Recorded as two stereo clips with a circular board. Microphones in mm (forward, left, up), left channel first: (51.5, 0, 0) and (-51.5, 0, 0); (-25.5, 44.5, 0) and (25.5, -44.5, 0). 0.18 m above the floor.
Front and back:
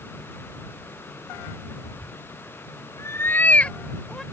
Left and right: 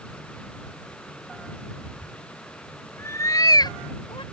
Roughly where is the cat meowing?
Ahead.